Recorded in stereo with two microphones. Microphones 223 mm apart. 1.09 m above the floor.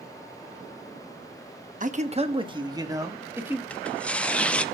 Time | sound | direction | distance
1.8 | a man speaking | 35° right (ahead or behind) | 1.1 m
3.7 | tearing paper | 5° left (ahead or behind) | 0.6 m